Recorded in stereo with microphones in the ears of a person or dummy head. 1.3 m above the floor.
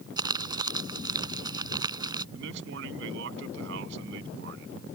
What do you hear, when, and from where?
0.2 s crumpling: 20° right (ahead or behind)
2.4 s a man speaking: 75° right (ahead or behind)